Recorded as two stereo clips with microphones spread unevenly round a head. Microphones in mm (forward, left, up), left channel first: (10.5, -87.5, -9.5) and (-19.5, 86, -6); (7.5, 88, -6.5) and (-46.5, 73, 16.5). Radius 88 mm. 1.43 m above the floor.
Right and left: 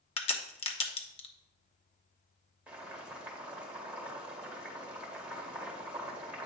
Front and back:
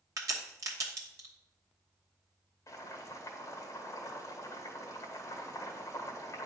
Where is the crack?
140° right, 0.9 m.